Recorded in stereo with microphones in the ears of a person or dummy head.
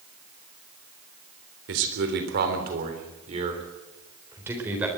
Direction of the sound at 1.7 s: 65° right (ahead or behind).